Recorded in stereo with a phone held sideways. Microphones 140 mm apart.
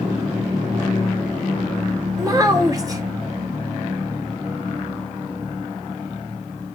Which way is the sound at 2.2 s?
25° right (ahead or behind).